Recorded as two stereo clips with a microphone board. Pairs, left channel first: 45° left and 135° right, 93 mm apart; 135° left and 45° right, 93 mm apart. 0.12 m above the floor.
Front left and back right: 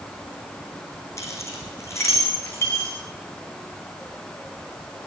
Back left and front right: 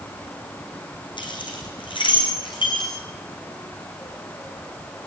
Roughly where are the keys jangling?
Left.